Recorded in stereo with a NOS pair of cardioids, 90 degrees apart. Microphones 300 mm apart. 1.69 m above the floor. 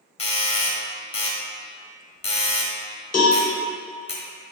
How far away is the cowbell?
About 1.0 m.